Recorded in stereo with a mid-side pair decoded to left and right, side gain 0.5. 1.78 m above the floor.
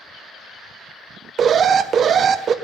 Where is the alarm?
50° right, 0.8 m.